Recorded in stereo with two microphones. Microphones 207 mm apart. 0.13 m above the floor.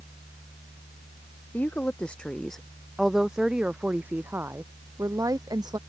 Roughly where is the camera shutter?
No camera shutter in this recording.